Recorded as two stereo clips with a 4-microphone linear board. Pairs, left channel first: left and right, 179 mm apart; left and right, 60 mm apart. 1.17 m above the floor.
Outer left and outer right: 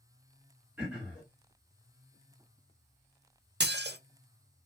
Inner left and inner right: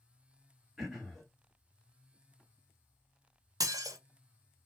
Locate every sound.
0.8 s throat clearing: 5° right (ahead or behind), 1.4 m
3.6 s dishes clattering: 75° right (ahead or behind), 0.5 m